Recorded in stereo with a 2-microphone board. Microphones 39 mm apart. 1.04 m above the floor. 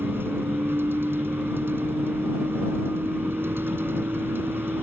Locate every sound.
0.0 s a vehicle: 75° right (ahead or behind)